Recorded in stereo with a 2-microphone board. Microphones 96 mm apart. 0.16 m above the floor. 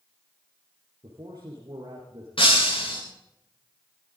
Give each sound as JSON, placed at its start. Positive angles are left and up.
{"t": 1.0, "sound": "a man speaking", "side_deg": -40, "distance_m": 4.0}
{"t": 2.4, "sound": "breaking glass", "side_deg": 65, "distance_m": 7.0}